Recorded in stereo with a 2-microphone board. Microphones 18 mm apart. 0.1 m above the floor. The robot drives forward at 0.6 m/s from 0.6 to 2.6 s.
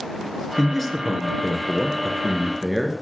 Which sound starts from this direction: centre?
A man speaking, at 0.6 s.